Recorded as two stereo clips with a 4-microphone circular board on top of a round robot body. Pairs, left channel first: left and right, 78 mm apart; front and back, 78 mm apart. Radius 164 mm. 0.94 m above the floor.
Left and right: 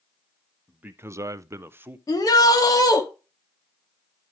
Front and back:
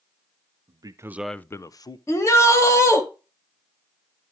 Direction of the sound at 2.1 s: 50° left.